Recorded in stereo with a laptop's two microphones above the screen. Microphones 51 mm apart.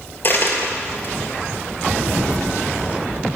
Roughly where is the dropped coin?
Left.